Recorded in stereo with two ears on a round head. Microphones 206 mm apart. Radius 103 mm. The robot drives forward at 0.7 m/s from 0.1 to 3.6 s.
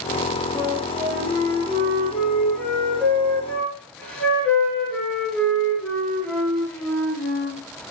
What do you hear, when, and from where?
0.6 s a flute: 5° left (ahead or behind), 7 m